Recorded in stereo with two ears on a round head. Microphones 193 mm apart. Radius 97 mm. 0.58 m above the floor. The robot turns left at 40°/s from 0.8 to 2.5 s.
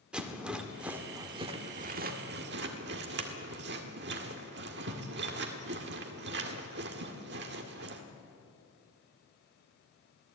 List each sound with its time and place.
0.1 s a rattle: 5° right (ahead or behind), 1.8 m; by 8.0 s 50° right (ahead or behind), 1.8 m